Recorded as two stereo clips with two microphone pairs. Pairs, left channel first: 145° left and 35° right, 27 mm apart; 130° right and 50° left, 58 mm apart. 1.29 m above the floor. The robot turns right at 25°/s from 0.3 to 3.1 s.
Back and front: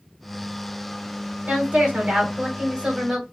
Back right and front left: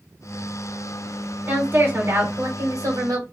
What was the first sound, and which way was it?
A woman speaking, 10° right.